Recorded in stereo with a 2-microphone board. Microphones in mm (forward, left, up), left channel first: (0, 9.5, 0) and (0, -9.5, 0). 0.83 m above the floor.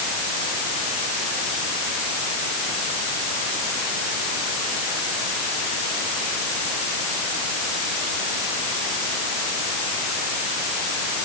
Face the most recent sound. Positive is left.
No sound to turn to.